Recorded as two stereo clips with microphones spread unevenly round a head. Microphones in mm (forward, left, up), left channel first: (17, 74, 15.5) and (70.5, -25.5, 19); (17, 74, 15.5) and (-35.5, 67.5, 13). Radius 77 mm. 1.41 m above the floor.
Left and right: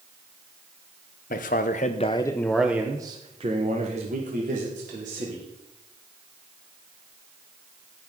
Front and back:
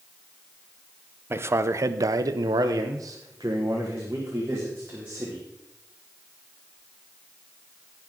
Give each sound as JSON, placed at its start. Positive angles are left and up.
{"t": 1.3, "sound": "a man speaking", "azimuth_deg": 145, "distance_m": 1.0}